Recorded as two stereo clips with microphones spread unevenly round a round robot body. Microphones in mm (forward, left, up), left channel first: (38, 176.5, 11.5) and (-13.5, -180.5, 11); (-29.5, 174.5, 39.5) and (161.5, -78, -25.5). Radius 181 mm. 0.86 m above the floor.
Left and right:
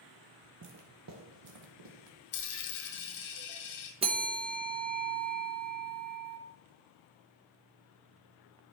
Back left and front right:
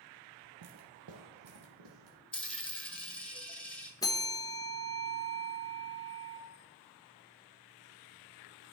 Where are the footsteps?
60° right, 0.9 m; by 2.2 s 90° right, 1.6 m.